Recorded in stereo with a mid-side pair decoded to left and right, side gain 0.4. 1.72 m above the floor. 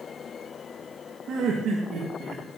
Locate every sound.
1.3 s laughter: 60° right, 2.5 m; by 2.4 s 65° right, 3.5 m